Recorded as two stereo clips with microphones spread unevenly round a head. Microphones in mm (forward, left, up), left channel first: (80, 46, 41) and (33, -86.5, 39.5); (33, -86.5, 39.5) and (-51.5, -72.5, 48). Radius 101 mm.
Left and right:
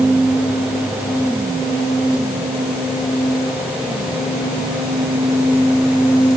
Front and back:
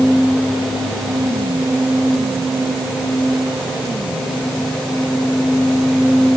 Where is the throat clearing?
I don't hear throat clearing.